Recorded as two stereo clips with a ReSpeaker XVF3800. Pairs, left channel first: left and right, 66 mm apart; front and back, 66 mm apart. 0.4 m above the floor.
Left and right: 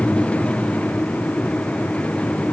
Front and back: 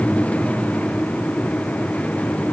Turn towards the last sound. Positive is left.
No sound to turn to.